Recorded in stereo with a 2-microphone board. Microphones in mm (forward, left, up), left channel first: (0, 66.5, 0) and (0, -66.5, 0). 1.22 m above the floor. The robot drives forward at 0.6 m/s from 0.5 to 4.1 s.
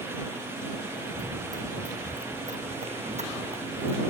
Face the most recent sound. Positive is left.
turn(degrees=-50)  # may be behind; listen again after turning